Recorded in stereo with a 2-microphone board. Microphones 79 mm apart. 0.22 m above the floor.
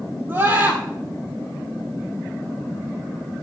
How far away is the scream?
About 6.5 m.